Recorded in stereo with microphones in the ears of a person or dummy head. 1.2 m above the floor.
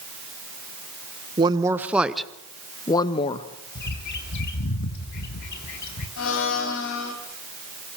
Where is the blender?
65° left (ahead or behind), 3 m.